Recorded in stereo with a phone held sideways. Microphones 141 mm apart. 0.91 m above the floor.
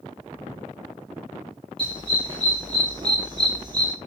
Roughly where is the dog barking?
Right.